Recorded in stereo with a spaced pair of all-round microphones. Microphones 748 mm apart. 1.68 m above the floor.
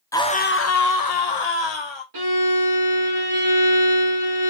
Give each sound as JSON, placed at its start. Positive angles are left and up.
{"t": 0.1, "sound": "a scream", "side_deg": 5, "distance_m": 0.5}
{"t": 2.1, "sound": "a violin", "side_deg": -30, "distance_m": 1.0}